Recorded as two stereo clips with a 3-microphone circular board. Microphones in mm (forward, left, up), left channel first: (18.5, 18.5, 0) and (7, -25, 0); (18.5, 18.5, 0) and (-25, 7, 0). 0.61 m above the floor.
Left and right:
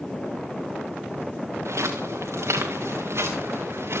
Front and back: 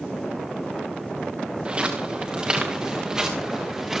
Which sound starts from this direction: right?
Footsteps, at 1.6 s.